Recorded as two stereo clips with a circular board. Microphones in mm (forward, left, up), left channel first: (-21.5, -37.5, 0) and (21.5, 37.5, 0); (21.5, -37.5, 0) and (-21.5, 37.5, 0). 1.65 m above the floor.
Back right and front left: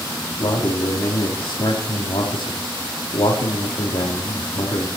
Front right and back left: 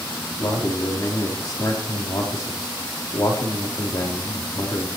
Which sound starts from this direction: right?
A man speaking, at 0.4 s.